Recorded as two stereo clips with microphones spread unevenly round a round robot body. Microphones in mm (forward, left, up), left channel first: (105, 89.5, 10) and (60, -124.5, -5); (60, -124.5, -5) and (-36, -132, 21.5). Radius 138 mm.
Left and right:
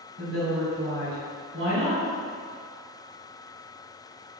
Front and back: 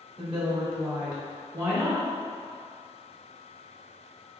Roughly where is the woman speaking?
Behind right.